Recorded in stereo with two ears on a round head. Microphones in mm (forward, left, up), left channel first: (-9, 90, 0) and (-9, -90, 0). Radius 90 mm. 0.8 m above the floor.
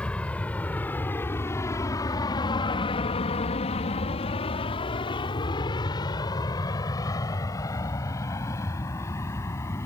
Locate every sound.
0.0 s an aircraft: 5° left (ahead or behind); by 9.9 s 10° left (ahead or behind)